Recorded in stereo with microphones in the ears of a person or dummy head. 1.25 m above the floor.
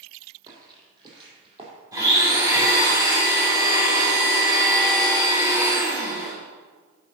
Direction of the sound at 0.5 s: 25° right (ahead or behind).